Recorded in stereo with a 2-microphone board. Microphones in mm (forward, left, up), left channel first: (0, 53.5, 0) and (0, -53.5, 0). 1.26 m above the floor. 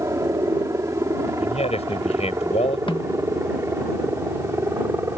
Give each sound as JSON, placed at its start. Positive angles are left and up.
{"t": 0.0, "sound": "a helicopter", "side_deg": -30}
{"t": 1.4, "sound": "a man speaking", "side_deg": 80}
{"t": 2.9, "sound": "a snare drum", "side_deg": 55}